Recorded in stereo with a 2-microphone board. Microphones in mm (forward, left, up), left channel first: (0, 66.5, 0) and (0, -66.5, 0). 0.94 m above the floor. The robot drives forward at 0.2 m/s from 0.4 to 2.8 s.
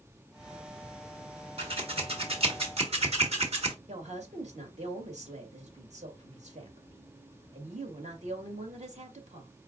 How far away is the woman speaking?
About 1.7 m.